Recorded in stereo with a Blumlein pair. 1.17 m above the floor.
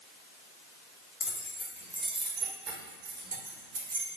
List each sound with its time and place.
1.2 s keys jangling: 25° left, 0.9 m; by 4.1 s 65° right, 1.4 m